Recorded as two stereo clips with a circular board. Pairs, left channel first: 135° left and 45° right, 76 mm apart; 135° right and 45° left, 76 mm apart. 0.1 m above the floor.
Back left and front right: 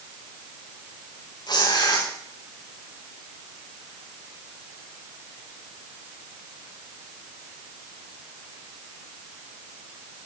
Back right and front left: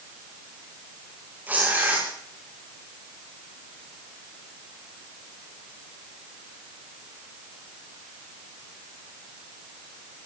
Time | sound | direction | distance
1.5 | tearing paper | 115° left | 7.5 m